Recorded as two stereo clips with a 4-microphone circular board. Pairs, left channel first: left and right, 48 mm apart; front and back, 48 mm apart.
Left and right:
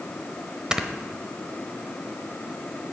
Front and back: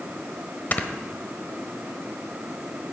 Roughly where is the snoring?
Ahead right.